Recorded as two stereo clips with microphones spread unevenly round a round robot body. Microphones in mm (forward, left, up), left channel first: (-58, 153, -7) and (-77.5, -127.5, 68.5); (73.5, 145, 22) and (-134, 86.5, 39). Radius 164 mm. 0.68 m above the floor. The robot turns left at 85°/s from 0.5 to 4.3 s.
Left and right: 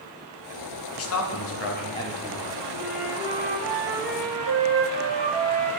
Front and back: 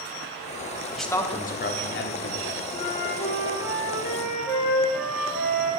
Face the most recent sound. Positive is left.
turn(degrees=-60)